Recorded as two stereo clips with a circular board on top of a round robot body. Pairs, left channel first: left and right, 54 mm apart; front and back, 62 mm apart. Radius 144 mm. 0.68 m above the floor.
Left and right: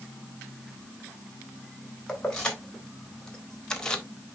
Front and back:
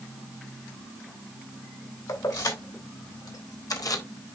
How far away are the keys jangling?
About 3.5 m.